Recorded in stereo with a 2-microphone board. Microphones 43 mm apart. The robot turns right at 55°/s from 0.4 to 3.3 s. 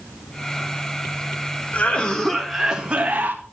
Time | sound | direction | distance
1.7 | a cough | 140° left | 1.6 m